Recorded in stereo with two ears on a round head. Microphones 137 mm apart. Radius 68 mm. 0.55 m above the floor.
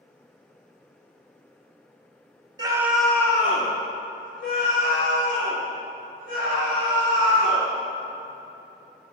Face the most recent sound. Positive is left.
turn(degrees=80)